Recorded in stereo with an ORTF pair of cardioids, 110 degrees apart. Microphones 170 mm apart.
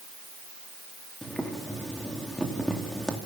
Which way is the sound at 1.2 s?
5° left.